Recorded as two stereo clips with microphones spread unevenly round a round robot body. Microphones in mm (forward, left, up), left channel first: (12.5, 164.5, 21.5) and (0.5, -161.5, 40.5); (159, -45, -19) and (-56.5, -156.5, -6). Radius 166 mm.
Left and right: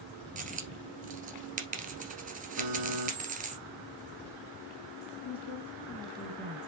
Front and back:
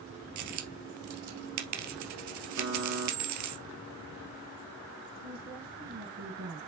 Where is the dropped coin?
160° right, 1.8 m.